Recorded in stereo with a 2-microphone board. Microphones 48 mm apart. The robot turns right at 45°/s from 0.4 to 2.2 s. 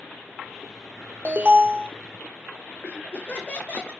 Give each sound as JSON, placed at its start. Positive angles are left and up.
{"t": 1.2, "sound": "an alarm", "side_deg": -35, "distance_m": 2.0}
{"t": 2.8, "sound": "laughter", "side_deg": 30, "distance_m": 3.5}